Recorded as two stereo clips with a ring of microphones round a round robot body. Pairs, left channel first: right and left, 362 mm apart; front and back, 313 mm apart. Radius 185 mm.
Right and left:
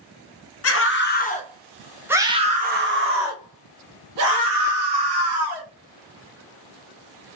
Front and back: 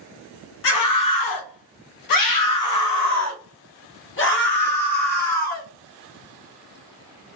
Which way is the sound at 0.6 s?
40° right.